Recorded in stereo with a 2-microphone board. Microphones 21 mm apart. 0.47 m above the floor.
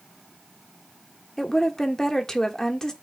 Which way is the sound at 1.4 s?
25° left (ahead or behind).